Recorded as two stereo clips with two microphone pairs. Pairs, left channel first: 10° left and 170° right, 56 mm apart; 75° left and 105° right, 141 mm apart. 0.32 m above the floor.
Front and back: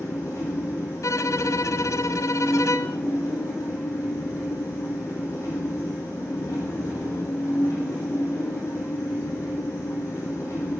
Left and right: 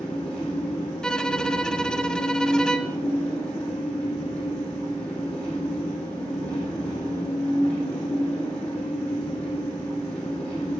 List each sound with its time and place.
0.0 s an engine running: 10° right, 5 m
1.0 s a violin: 10° right, 0.5 m